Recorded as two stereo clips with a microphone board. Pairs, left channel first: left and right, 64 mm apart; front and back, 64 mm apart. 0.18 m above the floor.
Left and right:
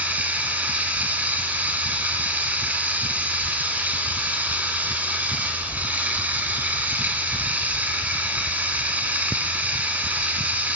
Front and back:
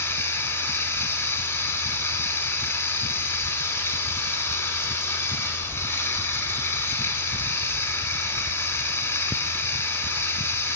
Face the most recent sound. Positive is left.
turn(degrees=-35)